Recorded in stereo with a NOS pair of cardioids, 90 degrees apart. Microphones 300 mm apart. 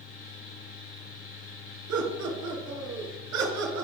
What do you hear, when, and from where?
0.0 s a fan: 50° left, 4 m
1.9 s laughter: 65° right, 4.5 m